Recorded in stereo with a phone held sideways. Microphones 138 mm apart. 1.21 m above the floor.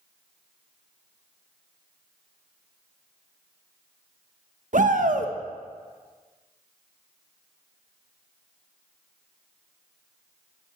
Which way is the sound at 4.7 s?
65° right (ahead or behind).